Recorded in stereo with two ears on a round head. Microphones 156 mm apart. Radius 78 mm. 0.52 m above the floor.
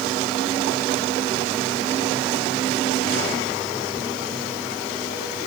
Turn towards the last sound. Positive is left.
No sound to turn to.